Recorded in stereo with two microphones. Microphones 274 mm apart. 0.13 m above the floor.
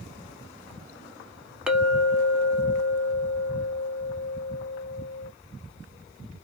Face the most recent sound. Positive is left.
turn(degrees=-5)  # may be behind; listen again after turning